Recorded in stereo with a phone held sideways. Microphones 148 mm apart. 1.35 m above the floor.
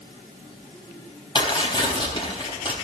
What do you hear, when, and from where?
1.4 s tearing paper: 35° left (ahead or behind), 3.5 m